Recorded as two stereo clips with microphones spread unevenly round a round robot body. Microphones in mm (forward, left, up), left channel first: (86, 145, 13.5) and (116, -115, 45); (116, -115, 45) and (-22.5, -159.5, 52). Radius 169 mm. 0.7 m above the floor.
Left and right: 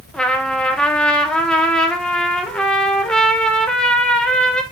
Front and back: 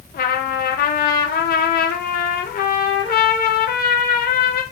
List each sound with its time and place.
0.1 s a trumpet: 10° left, 0.7 m